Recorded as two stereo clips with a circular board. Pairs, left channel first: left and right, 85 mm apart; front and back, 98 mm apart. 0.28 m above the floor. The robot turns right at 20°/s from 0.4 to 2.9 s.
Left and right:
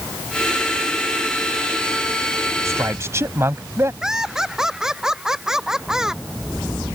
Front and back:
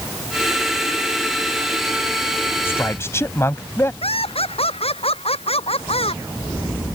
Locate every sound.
2.6 s a man speaking: 55° right; by 3.9 s 50° right
4.0 s laughter: 5° right